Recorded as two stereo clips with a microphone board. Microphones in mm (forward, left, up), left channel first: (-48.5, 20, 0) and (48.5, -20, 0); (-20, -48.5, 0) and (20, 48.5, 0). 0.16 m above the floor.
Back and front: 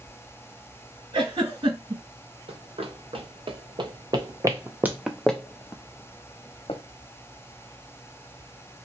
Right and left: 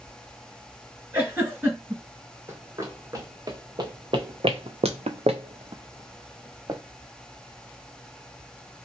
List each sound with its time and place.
1.1 s a giggle: straight ahead, 2 m
2.5 s running footsteps: straight ahead, 1.6 m; by 6.8 s 125° left, 1.1 m